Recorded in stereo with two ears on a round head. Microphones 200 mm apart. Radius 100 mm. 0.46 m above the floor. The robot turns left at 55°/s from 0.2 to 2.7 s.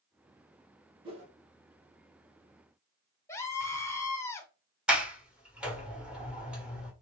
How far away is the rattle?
No rattle in this recording.